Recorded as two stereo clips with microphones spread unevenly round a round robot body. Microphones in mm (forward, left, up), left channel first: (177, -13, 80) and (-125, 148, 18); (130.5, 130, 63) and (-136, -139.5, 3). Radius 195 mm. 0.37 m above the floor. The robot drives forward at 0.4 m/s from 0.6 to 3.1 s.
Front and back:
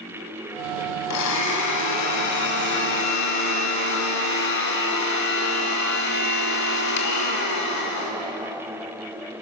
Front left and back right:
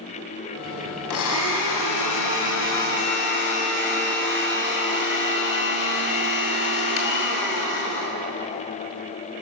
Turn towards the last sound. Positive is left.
turn(degrees=5)